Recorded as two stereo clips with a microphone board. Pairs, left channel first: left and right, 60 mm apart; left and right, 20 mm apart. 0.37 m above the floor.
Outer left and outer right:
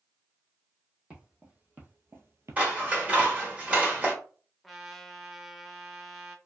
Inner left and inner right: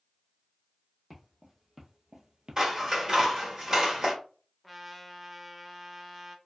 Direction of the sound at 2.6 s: 25° right (ahead or behind).